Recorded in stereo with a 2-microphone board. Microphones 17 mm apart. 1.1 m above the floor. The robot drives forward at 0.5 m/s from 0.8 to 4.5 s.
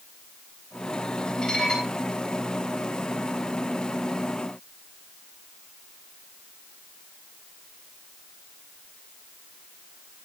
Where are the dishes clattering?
50° left (ahead or behind), 6.5 m.